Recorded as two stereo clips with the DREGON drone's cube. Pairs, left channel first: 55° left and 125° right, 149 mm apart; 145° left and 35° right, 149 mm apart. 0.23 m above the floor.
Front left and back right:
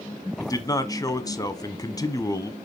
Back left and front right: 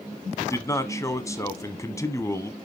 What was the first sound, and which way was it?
A man speaking, 95° left.